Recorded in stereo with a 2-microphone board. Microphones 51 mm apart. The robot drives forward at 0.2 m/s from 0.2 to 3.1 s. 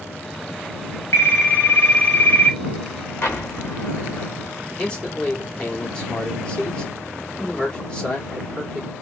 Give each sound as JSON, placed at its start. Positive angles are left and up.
{"t": 1.1, "sound": "a phone ringing", "side_deg": 50, "distance_m": 1.1}
{"t": 3.2, "sound": "an explosion", "side_deg": 55, "distance_m": 0.9}
{"t": 4.8, "sound": "a man speaking", "side_deg": 15, "distance_m": 1.6}